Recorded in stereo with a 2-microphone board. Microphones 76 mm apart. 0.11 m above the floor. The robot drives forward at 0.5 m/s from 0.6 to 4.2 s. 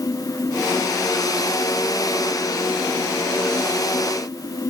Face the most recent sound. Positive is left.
No sound to turn to.